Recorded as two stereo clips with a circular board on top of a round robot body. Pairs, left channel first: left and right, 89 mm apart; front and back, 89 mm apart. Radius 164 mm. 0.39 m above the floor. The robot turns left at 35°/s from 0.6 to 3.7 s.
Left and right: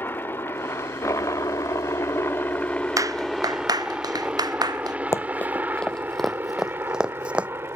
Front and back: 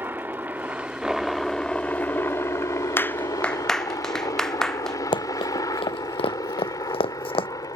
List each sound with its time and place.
0.0 s a helicopter: 135° left; by 7.8 s 35° right
3.0 s a clap: 55° right; by 5.0 s 80° right
5.1 s running footsteps: 30° left; by 7.5 s 15° right